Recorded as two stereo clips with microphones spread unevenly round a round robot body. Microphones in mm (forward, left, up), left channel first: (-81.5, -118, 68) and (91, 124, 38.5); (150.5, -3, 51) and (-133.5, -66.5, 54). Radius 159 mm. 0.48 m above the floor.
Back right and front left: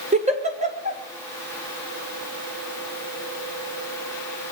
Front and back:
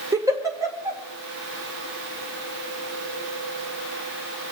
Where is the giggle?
115° left, 1.8 m.